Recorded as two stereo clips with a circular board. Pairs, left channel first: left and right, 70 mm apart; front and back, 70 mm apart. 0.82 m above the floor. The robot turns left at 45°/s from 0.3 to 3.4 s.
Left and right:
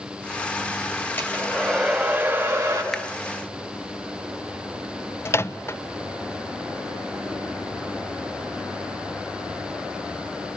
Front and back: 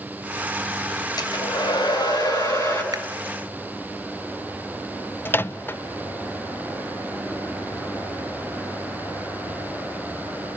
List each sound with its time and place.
1.2 s a hair dryer: 30° left, 5 m; by 2.8 s 45° right, 5 m
2.9 s a finger snap: straight behind, 1.2 m; by 3.0 s 175° left, 1.2 m
5.2 s a microwave: 50° left, 0.5 m